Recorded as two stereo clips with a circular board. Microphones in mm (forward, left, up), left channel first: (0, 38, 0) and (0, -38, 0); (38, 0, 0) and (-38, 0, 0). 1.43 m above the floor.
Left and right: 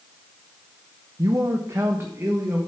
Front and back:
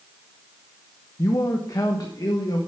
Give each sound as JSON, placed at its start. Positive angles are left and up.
{"t": 1.2, "sound": "a man speaking", "azimuth_deg": -50, "distance_m": 0.8}